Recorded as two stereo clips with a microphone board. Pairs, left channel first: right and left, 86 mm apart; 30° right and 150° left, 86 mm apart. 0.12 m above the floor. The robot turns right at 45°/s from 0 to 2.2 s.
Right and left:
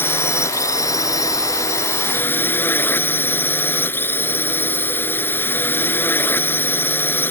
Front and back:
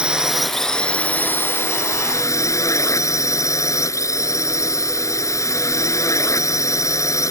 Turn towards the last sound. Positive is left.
turn(degrees=-40)